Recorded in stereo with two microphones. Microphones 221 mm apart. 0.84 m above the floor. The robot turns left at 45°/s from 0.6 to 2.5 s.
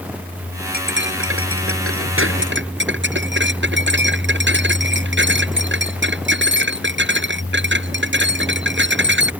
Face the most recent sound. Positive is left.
turn(degrees=-125)